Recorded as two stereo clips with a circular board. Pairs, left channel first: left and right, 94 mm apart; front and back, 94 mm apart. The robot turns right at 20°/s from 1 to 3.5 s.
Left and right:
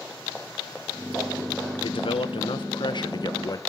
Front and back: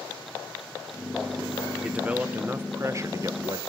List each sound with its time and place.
1.8 s a man speaking: 100° left, 1.2 m; by 3.6 s 135° left, 1.2 m